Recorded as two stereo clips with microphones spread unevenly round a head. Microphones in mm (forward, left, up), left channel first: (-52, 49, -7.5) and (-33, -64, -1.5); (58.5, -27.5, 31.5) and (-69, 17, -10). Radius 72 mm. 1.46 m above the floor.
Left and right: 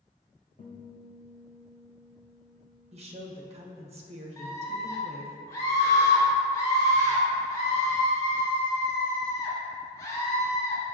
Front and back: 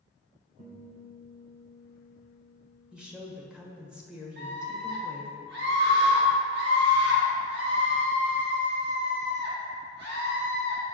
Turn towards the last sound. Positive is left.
turn(degrees=165)